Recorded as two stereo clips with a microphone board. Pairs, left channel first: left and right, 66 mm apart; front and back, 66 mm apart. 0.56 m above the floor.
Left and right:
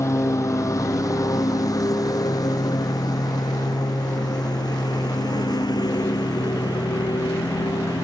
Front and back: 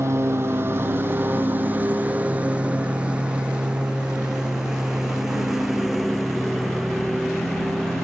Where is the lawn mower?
135° left; by 8.0 s 90° left.